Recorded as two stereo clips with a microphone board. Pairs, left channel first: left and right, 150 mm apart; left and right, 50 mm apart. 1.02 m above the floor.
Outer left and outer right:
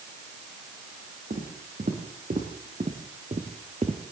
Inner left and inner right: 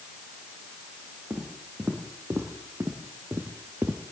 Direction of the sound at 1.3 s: 65° right (ahead or behind).